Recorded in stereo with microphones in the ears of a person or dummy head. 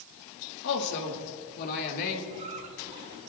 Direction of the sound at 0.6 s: 65° left (ahead or behind).